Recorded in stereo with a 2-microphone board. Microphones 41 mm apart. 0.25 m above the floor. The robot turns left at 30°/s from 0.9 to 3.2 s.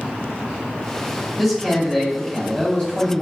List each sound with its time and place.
1.4 s a man speaking: 175° left, 1.4 m; by 3.2 s 120° left, 1.4 m